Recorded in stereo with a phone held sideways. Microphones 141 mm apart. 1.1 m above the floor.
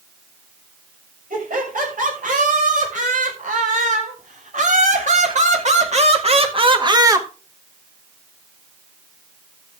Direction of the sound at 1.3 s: 75° right (ahead or behind).